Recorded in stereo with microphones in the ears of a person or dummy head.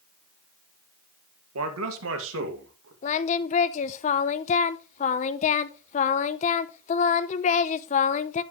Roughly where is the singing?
Left.